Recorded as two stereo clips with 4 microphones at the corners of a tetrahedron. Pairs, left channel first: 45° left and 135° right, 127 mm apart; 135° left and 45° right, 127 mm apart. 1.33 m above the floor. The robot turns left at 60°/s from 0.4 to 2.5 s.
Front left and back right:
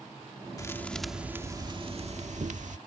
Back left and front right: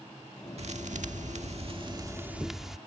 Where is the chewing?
I don't hear chewing.